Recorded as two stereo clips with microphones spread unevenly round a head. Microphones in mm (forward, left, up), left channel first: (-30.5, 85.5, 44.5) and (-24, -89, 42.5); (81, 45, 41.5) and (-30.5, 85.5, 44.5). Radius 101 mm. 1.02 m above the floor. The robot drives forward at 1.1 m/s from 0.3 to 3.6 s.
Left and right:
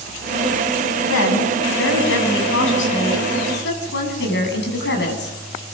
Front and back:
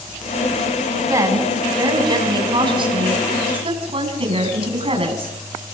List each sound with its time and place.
1.1 s a woman speaking: 95° left, 7 m; by 5.4 s 120° left, 8 m